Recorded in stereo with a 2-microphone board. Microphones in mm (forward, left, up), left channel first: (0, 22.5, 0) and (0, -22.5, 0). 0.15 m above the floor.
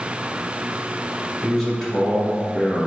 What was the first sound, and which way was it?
A man speaking, centre (ahead or behind).